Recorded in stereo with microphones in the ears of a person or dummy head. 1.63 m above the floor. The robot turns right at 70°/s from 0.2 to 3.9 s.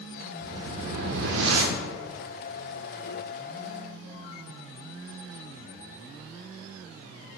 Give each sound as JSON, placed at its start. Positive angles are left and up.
{"t": 0.4, "sound": "a whoosh", "azimuth_deg": -170, "distance_m": 0.6}